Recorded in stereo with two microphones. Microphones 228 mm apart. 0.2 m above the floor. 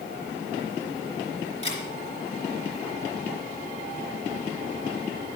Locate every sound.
1.6 s a camera shutter: 25° left (ahead or behind), 3 m